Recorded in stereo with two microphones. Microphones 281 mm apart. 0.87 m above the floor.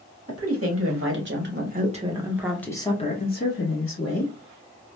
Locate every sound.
0.3 s a woman speaking: 55° right (ahead or behind), 1.4 m; by 4.3 s 55° left (ahead or behind), 1.2 m